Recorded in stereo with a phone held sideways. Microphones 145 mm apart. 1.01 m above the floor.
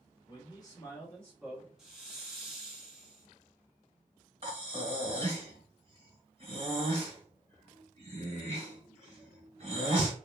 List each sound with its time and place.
0.3 s a man speaking: 35° left (ahead or behind), 1.0 m; by 1.7 s 5° right (ahead or behind), 1.0 m
1.8 s a hiss: 5° right (ahead or behind), 0.8 m
4.4 s breathing: 45° right (ahead or behind), 1.2 m